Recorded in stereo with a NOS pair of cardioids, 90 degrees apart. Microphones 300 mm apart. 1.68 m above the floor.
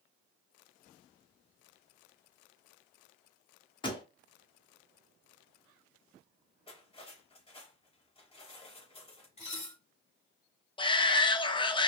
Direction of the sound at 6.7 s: 20° left.